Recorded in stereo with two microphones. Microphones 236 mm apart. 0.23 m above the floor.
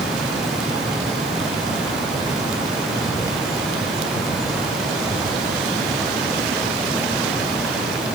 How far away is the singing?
I don't hear singing.